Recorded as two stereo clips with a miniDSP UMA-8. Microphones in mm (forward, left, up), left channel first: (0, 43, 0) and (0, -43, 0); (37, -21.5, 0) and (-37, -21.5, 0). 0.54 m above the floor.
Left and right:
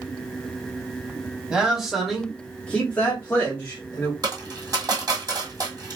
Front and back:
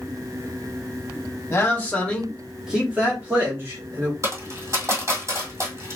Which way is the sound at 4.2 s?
130° right.